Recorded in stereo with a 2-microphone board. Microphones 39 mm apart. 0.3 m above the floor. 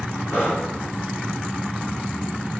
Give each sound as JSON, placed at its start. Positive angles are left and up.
{"t": 0.3, "sound": "breathing", "side_deg": 55, "distance_m": 3.5}